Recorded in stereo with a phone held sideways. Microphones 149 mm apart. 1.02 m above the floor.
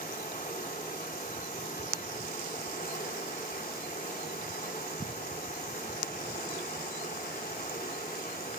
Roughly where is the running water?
Left.